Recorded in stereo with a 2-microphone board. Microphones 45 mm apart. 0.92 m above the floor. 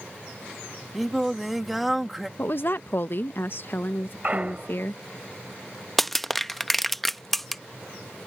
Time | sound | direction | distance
0.9 | singing | 5° right (ahead or behind) | ?
2.4 | a woman speaking | 50° left (ahead or behind) | ?
4.2 | a clunk | 35° right (ahead or behind) | ?
6.0 | crushing | 5° left (ahead or behind) | ?